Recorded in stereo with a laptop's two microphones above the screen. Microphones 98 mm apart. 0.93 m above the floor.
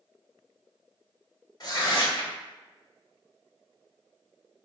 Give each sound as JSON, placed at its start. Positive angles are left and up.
{"t": 1.6, "sound": "tearing paper", "side_deg": 45, "distance_m": 1.2}